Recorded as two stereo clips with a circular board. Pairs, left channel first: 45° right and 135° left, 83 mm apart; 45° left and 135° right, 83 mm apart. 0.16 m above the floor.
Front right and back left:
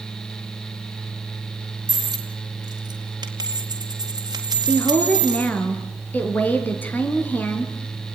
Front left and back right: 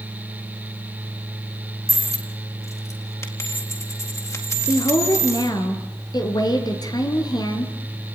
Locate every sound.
1.9 s a dropped coin: 95° left, 4 m
4.7 s a woman speaking: 20° left, 3.5 m